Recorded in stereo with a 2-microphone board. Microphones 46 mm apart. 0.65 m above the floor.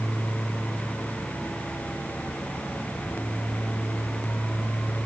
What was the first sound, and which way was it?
Only background noise.